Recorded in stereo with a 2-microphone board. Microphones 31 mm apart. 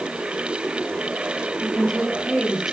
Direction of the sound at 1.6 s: Centre (ahead or behind).